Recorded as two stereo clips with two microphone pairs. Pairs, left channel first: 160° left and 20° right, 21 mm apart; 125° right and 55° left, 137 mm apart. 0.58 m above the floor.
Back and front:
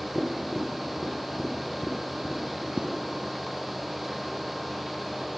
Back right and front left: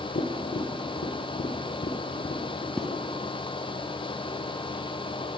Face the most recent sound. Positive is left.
turn(degrees=-40)